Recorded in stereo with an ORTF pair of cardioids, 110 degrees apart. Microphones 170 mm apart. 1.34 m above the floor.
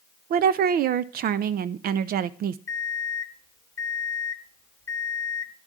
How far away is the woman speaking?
About 0.6 m.